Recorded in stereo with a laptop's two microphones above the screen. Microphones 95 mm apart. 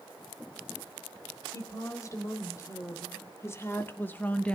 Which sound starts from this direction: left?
A woman speaking, at 1.5 s.